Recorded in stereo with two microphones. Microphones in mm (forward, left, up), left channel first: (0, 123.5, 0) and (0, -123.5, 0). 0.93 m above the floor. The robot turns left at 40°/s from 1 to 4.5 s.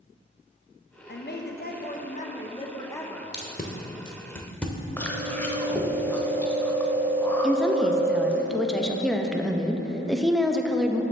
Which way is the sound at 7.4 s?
Centre (ahead or behind).